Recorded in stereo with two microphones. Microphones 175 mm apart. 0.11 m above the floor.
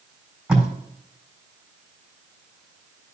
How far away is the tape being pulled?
About 3.5 m.